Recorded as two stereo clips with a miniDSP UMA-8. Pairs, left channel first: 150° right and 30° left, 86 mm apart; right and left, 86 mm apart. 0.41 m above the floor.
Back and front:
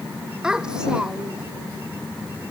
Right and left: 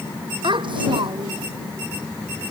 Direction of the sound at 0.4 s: 110° left.